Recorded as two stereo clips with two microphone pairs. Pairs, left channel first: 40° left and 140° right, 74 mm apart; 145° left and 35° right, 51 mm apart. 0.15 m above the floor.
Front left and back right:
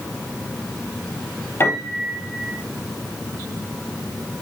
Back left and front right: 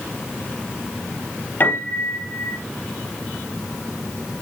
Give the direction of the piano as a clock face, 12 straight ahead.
9 o'clock.